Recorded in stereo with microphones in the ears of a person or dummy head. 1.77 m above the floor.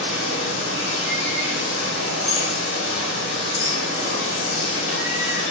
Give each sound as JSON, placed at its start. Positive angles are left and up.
{"t": 0.0, "sound": "running water", "side_deg": 70, "distance_m": 1.1}